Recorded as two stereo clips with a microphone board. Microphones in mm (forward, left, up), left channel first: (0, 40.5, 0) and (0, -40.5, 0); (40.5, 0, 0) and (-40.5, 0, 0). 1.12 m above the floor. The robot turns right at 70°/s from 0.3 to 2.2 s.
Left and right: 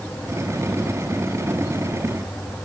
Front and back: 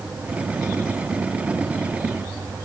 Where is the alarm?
I don't hear an alarm.